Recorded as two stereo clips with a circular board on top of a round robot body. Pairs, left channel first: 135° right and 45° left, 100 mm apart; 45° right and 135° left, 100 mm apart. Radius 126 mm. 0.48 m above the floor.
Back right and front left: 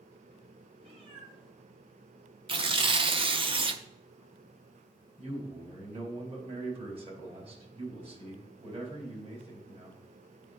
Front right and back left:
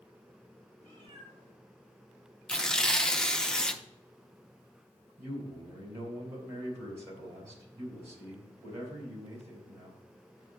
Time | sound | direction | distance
0.8 | a cat meowing | 80° left | 4.5 m
2.5 | tearing paper | 35° left | 0.9 m
5.2 | a man speaking | 70° left | 4.5 m